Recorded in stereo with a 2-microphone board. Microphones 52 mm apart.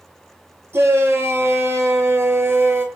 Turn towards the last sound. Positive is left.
turn(degrees=-50)  # may be behind; listen again after turning